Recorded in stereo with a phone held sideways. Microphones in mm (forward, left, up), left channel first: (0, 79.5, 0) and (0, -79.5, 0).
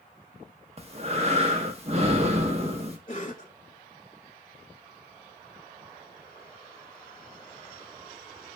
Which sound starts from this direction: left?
A cough, at 3.1 s.